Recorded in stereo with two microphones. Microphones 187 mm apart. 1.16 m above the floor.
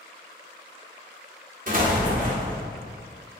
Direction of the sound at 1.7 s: 50° right (ahead or behind).